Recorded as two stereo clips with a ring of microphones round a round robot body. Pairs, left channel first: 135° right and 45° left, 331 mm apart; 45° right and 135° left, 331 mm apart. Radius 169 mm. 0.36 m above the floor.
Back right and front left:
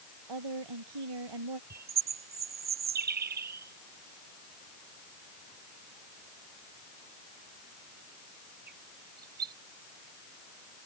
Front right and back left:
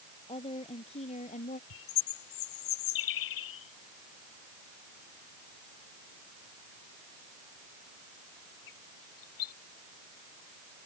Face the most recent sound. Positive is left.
turn(degrees=-20)